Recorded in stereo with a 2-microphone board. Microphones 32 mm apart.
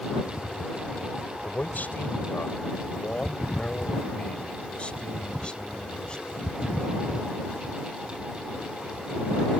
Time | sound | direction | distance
1.4 | a man speaking | 65° left (ahead or behind) | ?